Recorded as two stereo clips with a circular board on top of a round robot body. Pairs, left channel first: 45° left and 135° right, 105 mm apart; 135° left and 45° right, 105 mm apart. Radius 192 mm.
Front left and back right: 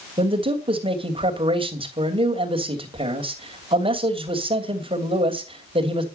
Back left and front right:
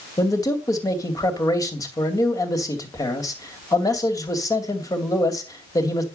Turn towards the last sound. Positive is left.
turn(degrees=-170)